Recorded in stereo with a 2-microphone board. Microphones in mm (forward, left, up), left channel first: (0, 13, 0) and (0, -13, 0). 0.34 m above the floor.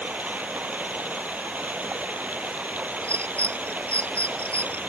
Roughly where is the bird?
Left.